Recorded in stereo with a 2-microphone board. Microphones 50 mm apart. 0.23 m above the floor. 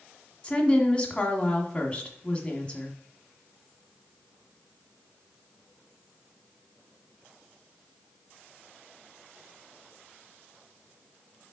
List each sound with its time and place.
0.4 s a woman speaking: 20° left (ahead or behind), 1.5 m